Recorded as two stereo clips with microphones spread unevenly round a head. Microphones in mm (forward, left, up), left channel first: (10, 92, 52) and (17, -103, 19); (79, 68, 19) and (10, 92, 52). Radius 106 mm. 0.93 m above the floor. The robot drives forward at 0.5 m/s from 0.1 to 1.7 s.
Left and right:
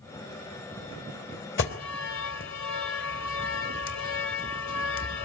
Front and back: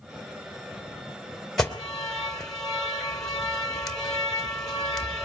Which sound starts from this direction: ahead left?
An alarm, at 1.6 s.